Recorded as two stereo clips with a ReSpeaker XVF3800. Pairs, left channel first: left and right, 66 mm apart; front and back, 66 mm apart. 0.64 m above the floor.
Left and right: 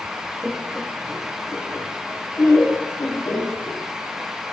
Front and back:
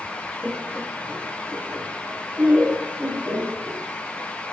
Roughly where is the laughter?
Behind right.